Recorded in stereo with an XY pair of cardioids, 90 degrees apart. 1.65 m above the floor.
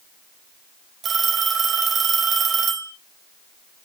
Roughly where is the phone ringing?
Ahead right.